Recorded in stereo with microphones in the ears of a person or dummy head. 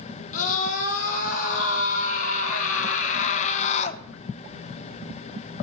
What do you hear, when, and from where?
0.3 s a scream: 45° left (ahead or behind), 5 m; by 4.0 s 35° left (ahead or behind), 0.8 m